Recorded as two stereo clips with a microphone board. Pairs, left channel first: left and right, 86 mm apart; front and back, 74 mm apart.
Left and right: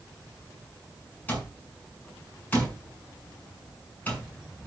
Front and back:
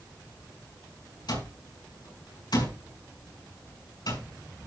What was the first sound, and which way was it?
An alarm clock, 20° left.